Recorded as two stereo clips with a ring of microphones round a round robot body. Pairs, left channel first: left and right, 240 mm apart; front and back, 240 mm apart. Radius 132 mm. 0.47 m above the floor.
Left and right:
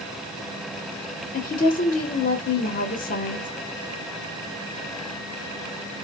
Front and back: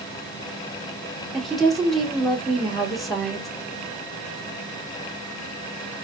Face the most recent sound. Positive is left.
turn(degrees=90)